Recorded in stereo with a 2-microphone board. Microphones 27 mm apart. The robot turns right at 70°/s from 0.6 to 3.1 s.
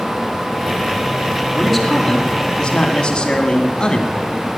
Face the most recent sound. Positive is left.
turn(degrees=100)